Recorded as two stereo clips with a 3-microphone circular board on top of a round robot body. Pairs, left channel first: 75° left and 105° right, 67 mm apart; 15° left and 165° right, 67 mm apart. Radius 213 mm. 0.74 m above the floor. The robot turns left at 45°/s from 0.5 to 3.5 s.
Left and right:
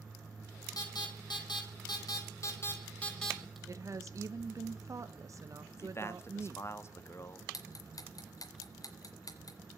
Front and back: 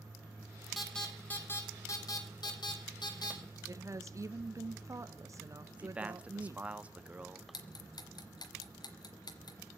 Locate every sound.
0.8 s an alarm: 105° left, 6 m; by 3.6 s 20° right, 6 m
3.7 s a woman speaking: 135° right, 1.6 m
5.7 s a man speaking: 125° left, 2 m
7.5 s ticking: 35° left, 1.6 m